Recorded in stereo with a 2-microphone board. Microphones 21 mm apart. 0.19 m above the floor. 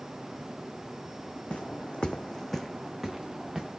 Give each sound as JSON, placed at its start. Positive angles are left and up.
{"t": 1.5, "sound": "footsteps", "side_deg": 85, "distance_m": 0.9}